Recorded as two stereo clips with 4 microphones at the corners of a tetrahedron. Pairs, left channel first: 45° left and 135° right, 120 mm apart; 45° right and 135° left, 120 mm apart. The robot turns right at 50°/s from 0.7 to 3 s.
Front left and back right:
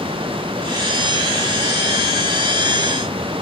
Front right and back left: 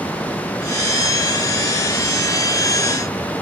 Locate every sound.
Only background noise.